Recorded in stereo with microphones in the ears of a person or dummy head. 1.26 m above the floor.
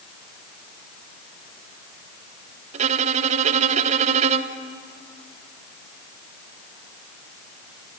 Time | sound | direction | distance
2.7 | a violin | 35° right (ahead or behind) | 1.1 m